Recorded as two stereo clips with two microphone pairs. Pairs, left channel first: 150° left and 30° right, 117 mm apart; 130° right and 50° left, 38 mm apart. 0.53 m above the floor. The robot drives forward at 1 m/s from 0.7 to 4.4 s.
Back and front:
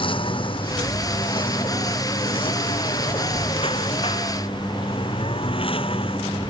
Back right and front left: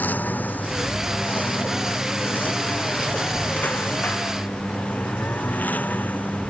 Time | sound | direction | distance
0.0 | a lawn mower | 170° right | ?